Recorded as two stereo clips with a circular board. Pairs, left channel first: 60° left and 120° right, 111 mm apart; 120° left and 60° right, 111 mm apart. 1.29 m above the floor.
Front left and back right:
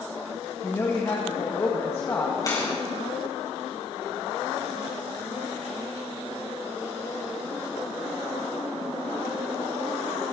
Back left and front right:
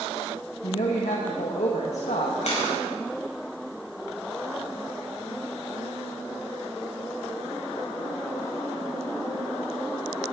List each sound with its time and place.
0.6 s a woman speaking: 125° left, 1.6 m
2.4 s a camera shutter: 115° left, 5.5 m